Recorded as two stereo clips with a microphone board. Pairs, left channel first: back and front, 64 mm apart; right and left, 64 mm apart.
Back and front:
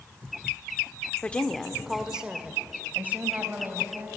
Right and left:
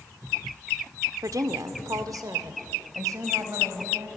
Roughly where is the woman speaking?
Behind left.